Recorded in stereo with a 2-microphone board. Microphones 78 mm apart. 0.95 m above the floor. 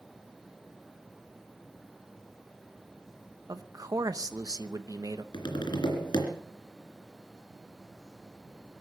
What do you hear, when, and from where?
3.5 s a man speaking: 50° right (ahead or behind), 0.9 m
5.3 s tapping: 75° left (ahead or behind), 3 m